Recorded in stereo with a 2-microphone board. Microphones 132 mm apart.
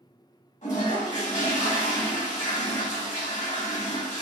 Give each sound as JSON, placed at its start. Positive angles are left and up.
{"t": 0.6, "sound": "a toilet flushing", "side_deg": 70, "distance_m": 1.4}